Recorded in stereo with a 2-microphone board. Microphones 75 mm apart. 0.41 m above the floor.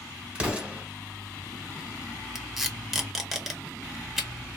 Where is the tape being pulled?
5° right (ahead or behind), 0.7 m.